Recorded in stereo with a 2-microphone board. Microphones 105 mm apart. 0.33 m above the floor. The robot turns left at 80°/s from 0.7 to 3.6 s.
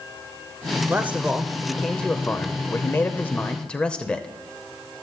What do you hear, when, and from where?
0.9 s a man speaking: 20° right (ahead or behind), 0.9 m; by 4.3 s 10° left (ahead or behind), 0.9 m